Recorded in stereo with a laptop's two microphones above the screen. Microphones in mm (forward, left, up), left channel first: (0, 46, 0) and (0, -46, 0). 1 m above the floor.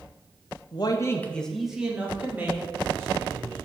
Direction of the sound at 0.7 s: 55° left (ahead or behind).